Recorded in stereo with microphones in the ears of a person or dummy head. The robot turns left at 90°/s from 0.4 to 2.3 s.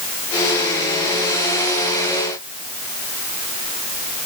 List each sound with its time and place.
Only background noise.